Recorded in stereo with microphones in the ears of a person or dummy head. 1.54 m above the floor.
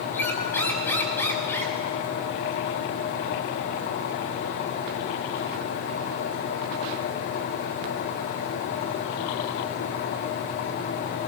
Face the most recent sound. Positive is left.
turn(degrees=15)  # may be behind; listen again after turning